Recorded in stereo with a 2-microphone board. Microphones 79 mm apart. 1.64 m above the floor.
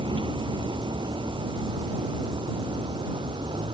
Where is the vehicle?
80° right.